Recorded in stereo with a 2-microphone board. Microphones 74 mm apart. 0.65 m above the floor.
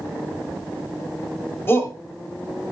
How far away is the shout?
About 3.5 m.